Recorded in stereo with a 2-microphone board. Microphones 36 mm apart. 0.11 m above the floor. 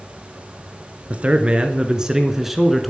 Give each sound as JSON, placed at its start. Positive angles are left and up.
{"t": 1.1, "sound": "a man speaking", "side_deg": -40, "distance_m": 1.5}